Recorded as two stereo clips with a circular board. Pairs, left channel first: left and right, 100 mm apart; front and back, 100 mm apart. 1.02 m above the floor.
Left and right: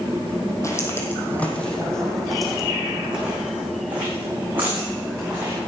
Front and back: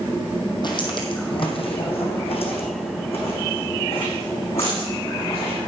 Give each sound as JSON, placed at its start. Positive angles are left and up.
{"t": 0.6, "sound": "footsteps", "azimuth_deg": 35, "distance_m": 2.0}